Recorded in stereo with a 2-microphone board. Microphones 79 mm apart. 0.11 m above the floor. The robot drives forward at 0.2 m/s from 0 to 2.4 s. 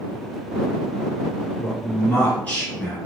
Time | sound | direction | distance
1.6 | a man speaking | 20° left (ahead or behind) | 1.7 m